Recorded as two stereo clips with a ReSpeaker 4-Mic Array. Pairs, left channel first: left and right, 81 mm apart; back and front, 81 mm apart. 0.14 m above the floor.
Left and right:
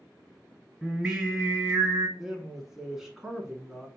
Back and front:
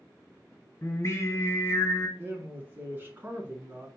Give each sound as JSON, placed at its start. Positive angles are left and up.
{"t": 0.8, "sound": "singing", "azimuth_deg": -165, "distance_m": 1.8}
{"t": 2.2, "sound": "a man speaking", "azimuth_deg": -5, "distance_m": 1.1}